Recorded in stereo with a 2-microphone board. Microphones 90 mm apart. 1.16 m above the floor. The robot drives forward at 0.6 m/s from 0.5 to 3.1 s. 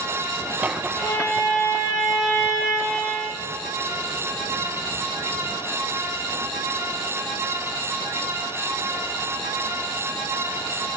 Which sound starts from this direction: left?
A violin, at 1.0 s.